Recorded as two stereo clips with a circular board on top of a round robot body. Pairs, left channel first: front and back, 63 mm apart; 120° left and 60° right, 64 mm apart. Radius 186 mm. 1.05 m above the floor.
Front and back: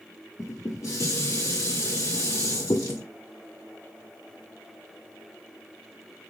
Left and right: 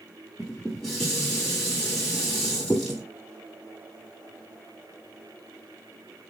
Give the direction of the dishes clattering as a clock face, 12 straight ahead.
11 o'clock.